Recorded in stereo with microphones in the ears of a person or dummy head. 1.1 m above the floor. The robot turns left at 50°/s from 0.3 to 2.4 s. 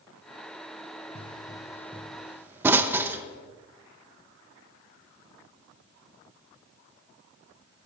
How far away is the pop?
About 0.8 m.